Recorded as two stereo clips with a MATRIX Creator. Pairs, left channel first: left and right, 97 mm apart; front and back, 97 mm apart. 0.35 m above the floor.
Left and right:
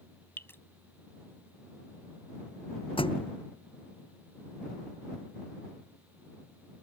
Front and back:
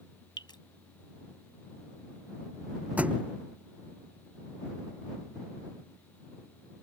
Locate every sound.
0.4 s dripping: 30° left
3.0 s a thud: 105° left